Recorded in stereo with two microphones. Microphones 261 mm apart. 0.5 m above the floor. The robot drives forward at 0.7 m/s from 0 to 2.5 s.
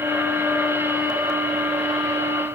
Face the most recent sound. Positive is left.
No sound to turn to.